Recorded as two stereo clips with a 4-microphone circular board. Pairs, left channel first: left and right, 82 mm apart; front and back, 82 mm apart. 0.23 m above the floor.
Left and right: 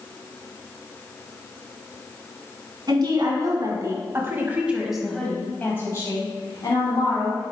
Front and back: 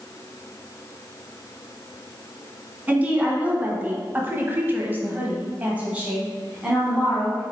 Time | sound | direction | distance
2.9 | a woman speaking | 110° right | 1.8 m